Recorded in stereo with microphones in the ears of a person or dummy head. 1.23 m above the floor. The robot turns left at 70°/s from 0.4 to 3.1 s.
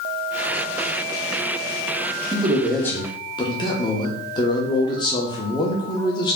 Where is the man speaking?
150° right, 0.7 m; by 6.4 s 150° left, 0.7 m.